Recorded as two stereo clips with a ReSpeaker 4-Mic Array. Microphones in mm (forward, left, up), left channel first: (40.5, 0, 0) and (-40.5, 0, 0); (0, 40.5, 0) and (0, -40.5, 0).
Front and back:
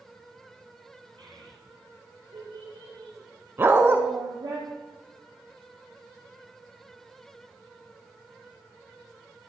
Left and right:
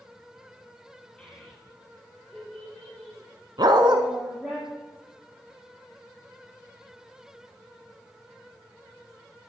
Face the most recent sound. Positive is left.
turn(degrees=-120)